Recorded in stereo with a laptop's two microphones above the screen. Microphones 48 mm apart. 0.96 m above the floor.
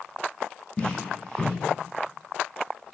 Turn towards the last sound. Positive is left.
turn(degrees=20)  # may be behind; listen again after turning